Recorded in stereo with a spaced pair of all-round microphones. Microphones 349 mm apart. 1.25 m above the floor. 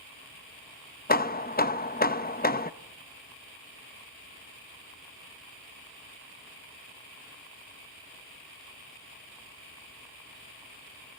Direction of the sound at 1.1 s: 25° left (ahead or behind).